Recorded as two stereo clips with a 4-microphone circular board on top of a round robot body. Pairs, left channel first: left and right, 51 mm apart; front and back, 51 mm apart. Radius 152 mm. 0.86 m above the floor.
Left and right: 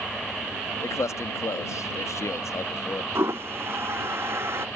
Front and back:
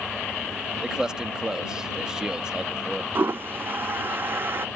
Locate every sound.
0.8 s a man speaking: 105° left
3.1 s a toilet flushing: 130° right